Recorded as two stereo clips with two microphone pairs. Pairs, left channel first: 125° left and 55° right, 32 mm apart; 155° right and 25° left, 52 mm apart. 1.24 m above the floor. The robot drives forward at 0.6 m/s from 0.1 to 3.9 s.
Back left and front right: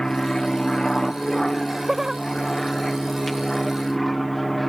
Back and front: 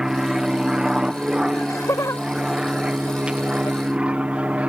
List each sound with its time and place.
0.0 s an aircraft: 85° left; by 4.7 s 40° left
1.5 s laughter: 135° right; by 3.8 s 140° right